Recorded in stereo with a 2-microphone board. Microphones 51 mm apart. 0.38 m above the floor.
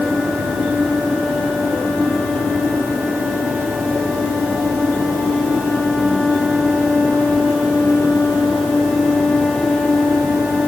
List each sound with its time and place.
Only background noise.